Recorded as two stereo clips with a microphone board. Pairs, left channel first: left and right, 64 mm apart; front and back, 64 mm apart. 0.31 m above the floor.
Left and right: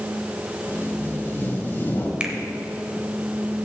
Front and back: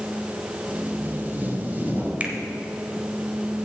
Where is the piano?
I don't hear a piano.